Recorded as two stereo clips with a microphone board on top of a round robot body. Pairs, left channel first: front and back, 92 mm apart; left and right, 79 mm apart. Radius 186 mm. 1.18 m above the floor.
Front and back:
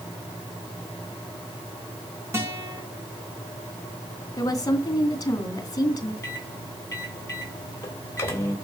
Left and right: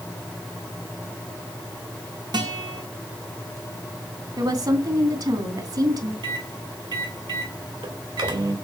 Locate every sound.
2.3 s a guitar: 120° right, 2.5 m
4.4 s a woman speaking: 55° right, 3 m
6.2 s a microwave: 65° right, 3 m